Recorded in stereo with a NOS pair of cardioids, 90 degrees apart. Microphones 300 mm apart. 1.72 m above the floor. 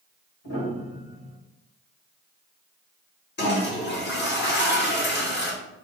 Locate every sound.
0.4 s a piano: 65° left, 2 m
3.4 s a toilet flushing: 35° left, 1.6 m